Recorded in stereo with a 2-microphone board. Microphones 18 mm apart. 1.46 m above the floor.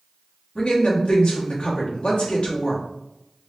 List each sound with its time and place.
0.6 s a woman speaking: 60° left (ahead or behind), 1.6 m